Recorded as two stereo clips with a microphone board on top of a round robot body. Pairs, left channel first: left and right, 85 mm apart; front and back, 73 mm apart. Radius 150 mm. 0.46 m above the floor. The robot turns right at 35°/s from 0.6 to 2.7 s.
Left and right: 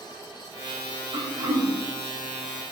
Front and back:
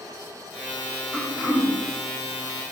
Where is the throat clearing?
100° right, 1.2 m; by 1.7 s 80° right, 1.2 m.